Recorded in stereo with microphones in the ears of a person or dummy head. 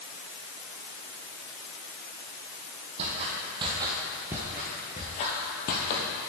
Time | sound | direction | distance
3.0 | footsteps | 45° right (ahead or behind) | 2 m